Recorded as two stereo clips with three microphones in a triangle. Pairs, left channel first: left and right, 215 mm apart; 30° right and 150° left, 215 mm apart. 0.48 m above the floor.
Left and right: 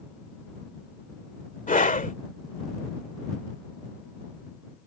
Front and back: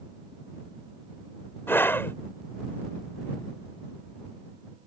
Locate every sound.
1.7 s a scream: 45° left